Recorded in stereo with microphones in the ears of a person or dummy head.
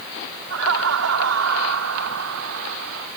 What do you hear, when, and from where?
0.5 s laughter: 85° right; by 3.1 s 75° right (ahead or behind)